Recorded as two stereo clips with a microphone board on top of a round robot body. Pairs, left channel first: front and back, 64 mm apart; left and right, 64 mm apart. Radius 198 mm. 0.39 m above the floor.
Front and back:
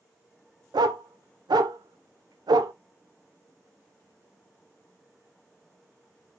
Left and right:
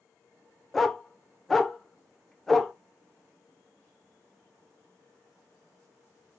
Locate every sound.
0.7 s a dog barking: 175° left, 0.5 m